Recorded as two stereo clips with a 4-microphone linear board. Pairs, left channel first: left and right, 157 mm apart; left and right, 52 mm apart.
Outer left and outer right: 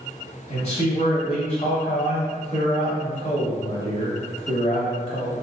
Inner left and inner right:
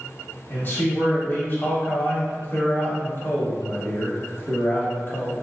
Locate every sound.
0.5 s a man speaking: 45° left (ahead or behind), 1.5 m